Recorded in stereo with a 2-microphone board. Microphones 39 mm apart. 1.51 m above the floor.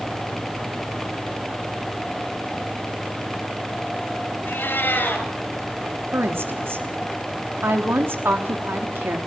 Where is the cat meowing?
65° left (ahead or behind), 4 m.